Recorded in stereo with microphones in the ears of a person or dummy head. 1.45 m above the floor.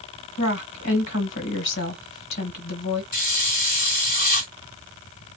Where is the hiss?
50° left (ahead or behind), 1.9 m.